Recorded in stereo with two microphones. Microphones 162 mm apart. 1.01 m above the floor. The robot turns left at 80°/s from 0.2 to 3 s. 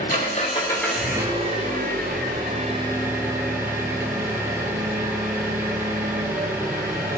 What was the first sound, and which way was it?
An engine running, 60° left.